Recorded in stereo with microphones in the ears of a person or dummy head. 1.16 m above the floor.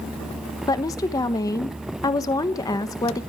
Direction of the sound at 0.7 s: 15° left (ahead or behind).